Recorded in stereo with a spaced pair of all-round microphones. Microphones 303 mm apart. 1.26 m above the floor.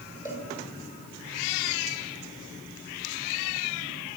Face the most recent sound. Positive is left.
turn(degrees=25)  # may be behind; listen again after turning